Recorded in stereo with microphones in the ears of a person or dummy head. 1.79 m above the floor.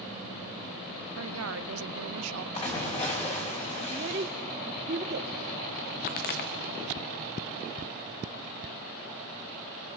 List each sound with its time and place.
1.2 s a woman speaking: 85° right, 1.1 m
2.5 s a splash: 30° left (ahead or behind), 3.5 m
3.9 s a child speaking: 25° right (ahead or behind), 0.6 m
6.1 s a pop: 30° left (ahead or behind), 1.0 m